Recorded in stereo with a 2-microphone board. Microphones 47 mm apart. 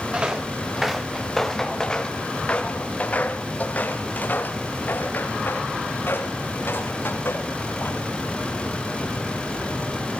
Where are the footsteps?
20° right (ahead or behind), 2.0 m; by 8.1 s 60° left (ahead or behind), 6.5 m.